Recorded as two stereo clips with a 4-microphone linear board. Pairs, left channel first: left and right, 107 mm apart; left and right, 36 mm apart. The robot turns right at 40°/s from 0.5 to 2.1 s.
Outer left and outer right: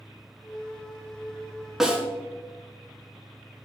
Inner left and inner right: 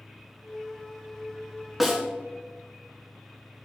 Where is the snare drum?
5° right (ahead or behind), 1.3 m; by 2.0 s 10° right (ahead or behind), 1.3 m.